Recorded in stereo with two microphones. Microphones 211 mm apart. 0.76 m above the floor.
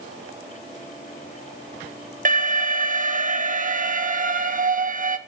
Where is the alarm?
40° right (ahead or behind), 1.2 m.